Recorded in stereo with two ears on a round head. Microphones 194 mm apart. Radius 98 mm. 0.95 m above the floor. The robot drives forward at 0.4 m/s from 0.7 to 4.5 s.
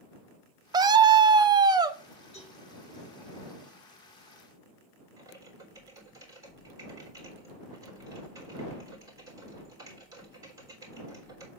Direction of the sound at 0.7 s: 20° right (ahead or behind).